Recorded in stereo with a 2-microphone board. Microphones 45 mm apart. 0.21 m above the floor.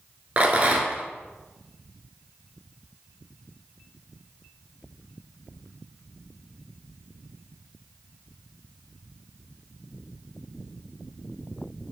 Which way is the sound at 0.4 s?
30° right (ahead or behind).